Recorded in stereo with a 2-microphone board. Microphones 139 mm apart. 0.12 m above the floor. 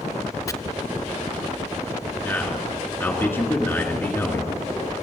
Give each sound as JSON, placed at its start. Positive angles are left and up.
{"t": 0.5, "sound": "chopping", "side_deg": 25, "distance_m": 0.6}
{"t": 2.2, "sound": "a man speaking", "side_deg": 15, "distance_m": 2.0}